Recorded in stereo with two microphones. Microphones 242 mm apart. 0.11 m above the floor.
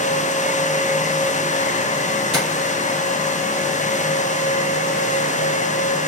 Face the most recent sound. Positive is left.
turn(degrees=20)  # may be behind; listen again after turning